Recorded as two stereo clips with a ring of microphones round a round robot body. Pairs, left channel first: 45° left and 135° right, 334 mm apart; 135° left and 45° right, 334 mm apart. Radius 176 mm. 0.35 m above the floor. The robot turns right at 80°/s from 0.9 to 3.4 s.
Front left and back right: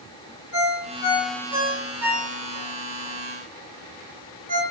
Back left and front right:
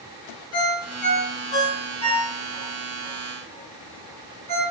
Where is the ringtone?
90° left, 3.5 m; by 4.6 s 70° right, 3.5 m.